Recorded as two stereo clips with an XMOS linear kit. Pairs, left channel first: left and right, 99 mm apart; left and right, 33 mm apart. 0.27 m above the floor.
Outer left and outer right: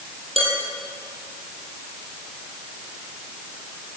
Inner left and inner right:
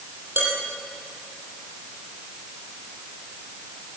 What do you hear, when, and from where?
0.4 s dishes clattering: 80° right, 6.5 m